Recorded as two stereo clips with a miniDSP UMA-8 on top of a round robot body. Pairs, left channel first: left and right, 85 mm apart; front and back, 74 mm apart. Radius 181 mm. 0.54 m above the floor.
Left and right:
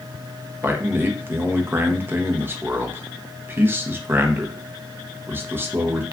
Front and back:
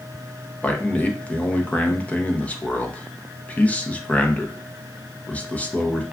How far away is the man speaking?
About 0.8 m.